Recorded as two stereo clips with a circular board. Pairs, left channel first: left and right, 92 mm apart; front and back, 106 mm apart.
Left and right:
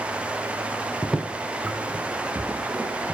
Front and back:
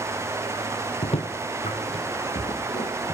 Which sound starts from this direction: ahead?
Footsteps, at 1.0 s.